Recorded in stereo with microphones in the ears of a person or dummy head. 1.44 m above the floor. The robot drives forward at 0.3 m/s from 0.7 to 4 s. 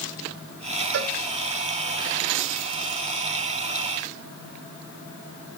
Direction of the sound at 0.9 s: 55° right (ahead or behind).